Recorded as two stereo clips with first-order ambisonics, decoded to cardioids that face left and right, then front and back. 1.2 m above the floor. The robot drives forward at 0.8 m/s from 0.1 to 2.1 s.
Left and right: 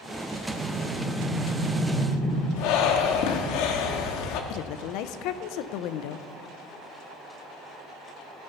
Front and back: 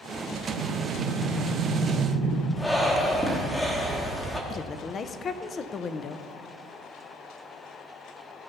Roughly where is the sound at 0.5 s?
Behind.